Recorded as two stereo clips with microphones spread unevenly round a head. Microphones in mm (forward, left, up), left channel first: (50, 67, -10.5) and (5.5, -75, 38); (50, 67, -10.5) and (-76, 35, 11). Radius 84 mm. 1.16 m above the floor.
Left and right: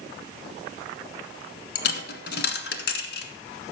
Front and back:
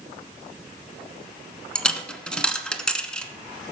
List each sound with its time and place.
1.8 s a dropped coin: 105° left, 1.5 m